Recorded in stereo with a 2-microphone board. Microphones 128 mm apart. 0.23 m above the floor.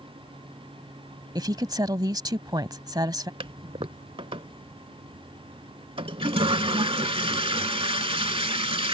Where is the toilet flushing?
45° right (ahead or behind).